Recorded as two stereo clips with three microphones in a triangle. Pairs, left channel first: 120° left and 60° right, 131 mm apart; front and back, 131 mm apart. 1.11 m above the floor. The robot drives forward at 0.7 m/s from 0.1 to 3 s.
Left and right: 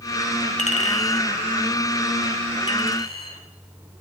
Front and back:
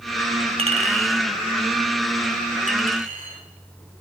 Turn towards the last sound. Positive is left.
turn(degrees=165)